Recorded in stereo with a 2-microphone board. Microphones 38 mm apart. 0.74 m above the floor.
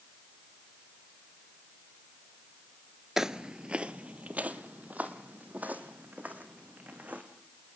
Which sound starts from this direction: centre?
Footsteps, at 3.2 s.